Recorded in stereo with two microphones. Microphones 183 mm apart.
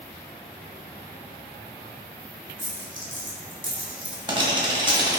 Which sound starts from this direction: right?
A dropped coin, at 2.6 s.